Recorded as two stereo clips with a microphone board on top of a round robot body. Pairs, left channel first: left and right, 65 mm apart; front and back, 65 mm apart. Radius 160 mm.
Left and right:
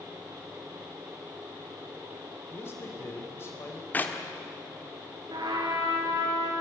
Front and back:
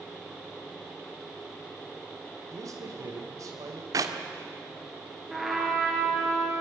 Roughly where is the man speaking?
Behind left.